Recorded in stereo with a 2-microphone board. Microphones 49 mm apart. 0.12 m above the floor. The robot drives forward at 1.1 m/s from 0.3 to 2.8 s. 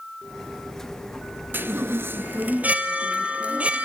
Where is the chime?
45° right (ahead or behind), 0.8 m; by 3.9 s 25° right (ahead or behind), 1.2 m.